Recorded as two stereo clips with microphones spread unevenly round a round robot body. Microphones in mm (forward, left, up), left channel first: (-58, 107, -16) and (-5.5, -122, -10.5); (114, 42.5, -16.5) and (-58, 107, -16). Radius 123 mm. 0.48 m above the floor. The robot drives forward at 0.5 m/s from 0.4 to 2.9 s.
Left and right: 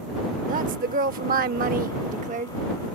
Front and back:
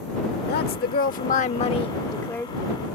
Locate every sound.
0.5 s a woman speaking: 25° right; by 2.6 s 105° right